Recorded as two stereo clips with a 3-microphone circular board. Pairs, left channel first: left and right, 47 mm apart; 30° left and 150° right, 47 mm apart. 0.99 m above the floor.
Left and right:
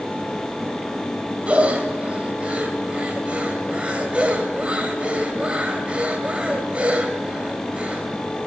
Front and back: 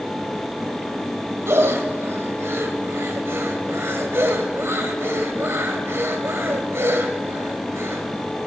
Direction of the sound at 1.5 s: 150° right.